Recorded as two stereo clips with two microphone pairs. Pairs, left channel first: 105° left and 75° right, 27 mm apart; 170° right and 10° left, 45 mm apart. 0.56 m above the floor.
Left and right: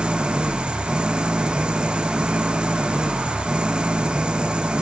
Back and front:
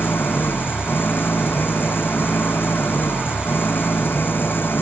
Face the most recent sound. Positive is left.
turn(degrees=-130)